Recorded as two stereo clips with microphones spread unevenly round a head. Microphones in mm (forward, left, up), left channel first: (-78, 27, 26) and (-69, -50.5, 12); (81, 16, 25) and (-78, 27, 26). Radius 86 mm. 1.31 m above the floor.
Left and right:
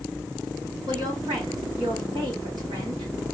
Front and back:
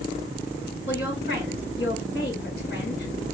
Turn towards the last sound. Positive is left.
turn(degrees=-35)